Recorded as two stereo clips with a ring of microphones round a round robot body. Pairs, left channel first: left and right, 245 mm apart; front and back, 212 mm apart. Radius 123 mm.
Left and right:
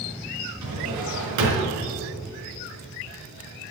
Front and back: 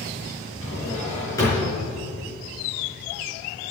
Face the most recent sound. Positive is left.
turn(degrees=-75)